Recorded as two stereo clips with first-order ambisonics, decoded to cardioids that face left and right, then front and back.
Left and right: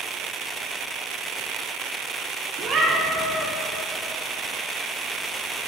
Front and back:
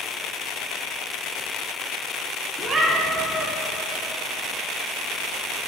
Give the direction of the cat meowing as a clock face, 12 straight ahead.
4 o'clock.